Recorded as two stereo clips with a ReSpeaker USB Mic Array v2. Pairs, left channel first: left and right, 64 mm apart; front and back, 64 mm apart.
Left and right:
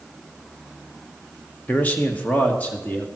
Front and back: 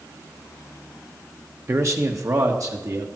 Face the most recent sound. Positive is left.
turn(degrees=155)